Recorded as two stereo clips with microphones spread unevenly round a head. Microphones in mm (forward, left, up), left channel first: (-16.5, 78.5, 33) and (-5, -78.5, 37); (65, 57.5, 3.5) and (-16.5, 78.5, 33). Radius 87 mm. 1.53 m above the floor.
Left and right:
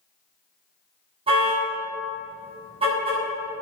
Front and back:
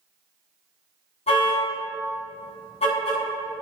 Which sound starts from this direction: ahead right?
A car horn, at 1.3 s.